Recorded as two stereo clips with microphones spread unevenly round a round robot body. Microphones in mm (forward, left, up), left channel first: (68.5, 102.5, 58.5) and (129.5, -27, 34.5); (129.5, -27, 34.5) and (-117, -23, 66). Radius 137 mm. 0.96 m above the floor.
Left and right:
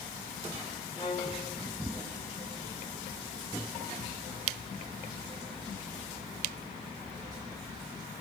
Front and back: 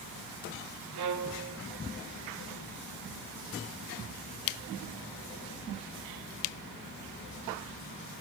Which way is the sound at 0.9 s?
175° right.